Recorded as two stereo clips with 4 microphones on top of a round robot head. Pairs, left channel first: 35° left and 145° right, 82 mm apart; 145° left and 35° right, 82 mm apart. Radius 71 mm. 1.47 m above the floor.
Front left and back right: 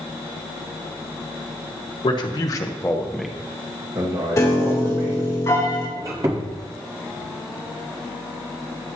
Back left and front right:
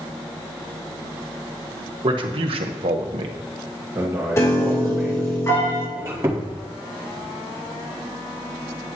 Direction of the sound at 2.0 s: Straight ahead.